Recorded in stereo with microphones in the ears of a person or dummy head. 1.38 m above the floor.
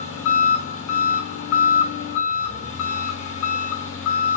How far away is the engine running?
About 1.2 m.